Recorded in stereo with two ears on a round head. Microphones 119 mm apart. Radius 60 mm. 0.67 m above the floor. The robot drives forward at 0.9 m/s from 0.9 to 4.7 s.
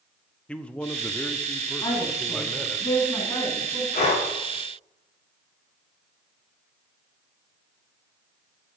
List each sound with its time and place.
0.5 s a man speaking: 10° left (ahead or behind), 0.7 m; by 2.8 s 5° left (ahead or behind), 2 m
1.8 s a woman speaking: 30° left (ahead or behind), 5 m; by 3.8 s 20° left (ahead or behind), 6.5 m
3.9 s breathing: 50° left (ahead or behind), 5.5 m